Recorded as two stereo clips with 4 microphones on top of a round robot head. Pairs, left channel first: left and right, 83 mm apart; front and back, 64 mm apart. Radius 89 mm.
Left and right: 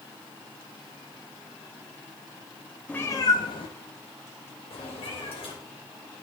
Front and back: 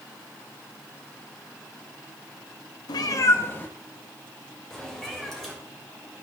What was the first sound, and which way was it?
A cat meowing, 10° left.